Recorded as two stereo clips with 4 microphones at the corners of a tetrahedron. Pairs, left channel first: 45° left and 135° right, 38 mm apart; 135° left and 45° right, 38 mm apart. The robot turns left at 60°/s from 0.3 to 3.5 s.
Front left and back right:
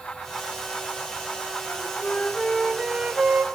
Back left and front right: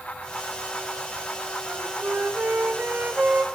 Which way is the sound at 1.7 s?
15° left.